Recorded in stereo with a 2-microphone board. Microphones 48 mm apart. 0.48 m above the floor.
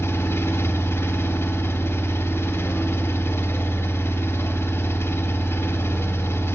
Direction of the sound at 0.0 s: 65° left (ahead or behind).